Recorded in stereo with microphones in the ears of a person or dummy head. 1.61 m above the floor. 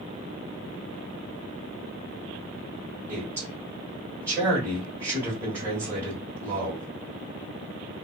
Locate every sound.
3.1 s a man speaking: 20° right (ahead or behind), 1.4 m